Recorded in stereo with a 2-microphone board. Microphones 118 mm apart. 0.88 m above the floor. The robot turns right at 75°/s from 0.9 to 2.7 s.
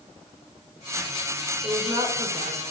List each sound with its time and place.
1.6 s a woman speaking: 175° right, 4 m; by 2.7 s 95° right, 4 m